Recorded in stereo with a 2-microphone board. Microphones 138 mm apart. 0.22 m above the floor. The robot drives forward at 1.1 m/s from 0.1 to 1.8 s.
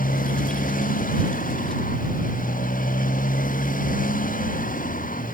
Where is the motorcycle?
85° left; by 5.3 s 80° left.